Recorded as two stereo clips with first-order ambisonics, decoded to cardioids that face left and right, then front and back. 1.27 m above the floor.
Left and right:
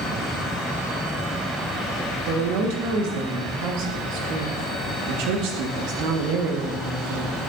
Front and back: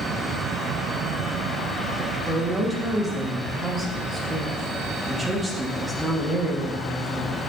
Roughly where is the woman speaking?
Right.